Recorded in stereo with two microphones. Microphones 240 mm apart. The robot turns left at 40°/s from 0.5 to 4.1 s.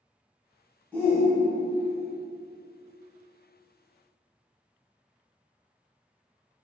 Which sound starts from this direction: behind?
A shout, at 0.9 s.